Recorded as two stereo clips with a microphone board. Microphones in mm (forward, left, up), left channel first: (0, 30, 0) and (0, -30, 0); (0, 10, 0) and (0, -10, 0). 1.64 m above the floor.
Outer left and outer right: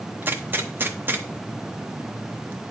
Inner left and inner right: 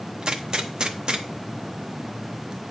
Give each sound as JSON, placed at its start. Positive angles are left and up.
{"t": 0.2, "sound": "a gunshot", "side_deg": -35, "distance_m": 0.7}